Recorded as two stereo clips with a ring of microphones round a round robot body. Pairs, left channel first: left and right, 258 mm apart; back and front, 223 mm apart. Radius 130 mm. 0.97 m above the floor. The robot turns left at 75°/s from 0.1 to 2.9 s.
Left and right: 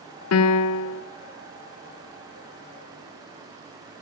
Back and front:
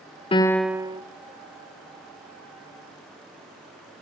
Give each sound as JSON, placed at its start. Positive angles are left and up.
{"t": 0.3, "sound": "a piano", "azimuth_deg": 115, "distance_m": 0.5}